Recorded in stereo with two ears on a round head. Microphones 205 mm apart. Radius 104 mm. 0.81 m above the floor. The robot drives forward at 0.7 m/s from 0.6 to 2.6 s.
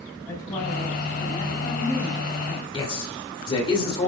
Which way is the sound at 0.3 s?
15° left (ahead or behind).